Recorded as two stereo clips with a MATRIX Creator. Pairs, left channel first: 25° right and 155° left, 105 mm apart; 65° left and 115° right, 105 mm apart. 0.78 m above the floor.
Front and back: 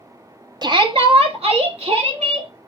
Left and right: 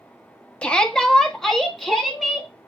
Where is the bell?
No bell in this recording.